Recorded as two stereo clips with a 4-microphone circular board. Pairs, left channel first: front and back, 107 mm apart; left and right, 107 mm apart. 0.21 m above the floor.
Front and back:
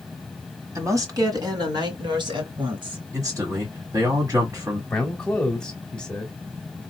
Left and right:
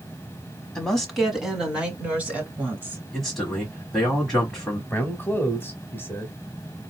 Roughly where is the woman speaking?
Behind.